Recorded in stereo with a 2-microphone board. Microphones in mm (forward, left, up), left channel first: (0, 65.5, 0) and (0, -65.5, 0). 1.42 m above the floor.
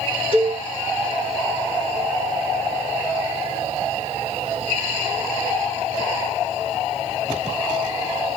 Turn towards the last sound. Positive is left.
turn(degrees=40)  # may be behind; listen again after turning